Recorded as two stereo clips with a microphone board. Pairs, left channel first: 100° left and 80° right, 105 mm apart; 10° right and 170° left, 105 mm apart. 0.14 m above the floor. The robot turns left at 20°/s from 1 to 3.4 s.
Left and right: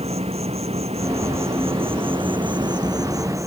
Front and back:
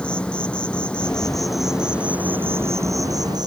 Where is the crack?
No crack in this recording.